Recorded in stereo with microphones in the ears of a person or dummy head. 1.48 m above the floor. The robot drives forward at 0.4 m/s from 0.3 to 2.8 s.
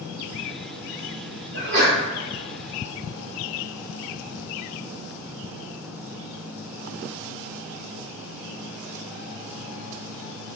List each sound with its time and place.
1.5 s a sneeze: 65° right (ahead or behind), 1.1 m; by 2.0 s 70° right (ahead or behind), 1.0 m